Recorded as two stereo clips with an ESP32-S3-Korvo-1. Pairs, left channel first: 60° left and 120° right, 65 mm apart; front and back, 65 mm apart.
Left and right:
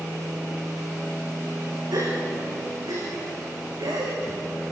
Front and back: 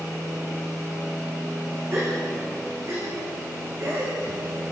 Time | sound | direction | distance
1.9 | a gasp | 135° right | 10 m